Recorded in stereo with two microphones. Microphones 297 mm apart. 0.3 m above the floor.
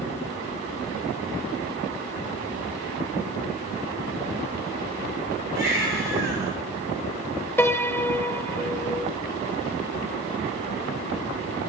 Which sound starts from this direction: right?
A baby crying, at 5.5 s.